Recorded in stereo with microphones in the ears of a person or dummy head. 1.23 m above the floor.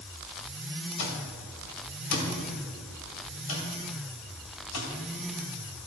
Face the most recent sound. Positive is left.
turn(degrees=70)  # may be behind; listen again after turning